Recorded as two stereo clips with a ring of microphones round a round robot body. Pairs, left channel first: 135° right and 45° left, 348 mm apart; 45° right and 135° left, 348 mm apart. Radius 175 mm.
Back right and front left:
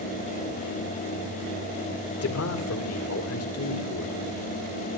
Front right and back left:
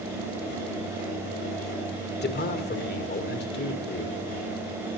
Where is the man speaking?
100° right, 2 m.